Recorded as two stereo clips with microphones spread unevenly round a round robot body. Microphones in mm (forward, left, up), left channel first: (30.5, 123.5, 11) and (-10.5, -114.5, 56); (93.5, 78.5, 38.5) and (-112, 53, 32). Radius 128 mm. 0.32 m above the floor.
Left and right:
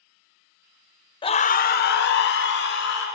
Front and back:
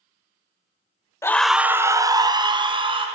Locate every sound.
1.2 s a scream: 75° left, 0.9 m; by 3.1 s 120° left, 3 m